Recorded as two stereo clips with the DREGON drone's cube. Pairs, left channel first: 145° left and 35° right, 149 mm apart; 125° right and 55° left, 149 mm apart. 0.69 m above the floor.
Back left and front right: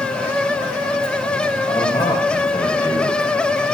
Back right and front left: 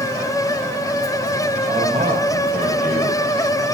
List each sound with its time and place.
1.7 s a man speaking: 85° left, 3.5 m